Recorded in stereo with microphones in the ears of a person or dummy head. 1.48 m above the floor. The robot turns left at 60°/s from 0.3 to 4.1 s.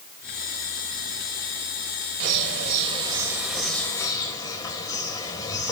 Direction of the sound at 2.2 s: 95° right.